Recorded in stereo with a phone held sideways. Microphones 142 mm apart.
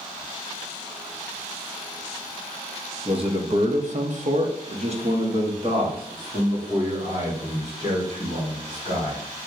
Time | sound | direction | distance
3.0 | a man speaking | 40° right (ahead or behind) | 0.8 m